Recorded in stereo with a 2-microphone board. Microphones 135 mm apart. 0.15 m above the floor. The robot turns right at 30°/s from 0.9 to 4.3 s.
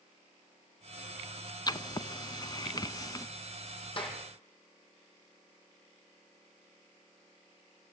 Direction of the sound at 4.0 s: 40° left (ahead or behind).